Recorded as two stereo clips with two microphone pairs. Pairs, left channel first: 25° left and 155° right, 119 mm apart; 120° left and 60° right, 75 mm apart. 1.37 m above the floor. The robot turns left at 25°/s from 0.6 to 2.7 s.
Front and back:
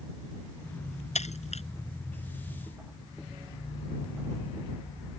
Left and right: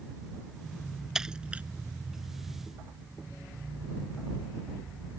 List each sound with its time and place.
1.1 s breaking glass: 20° left; by 1.6 s 10° left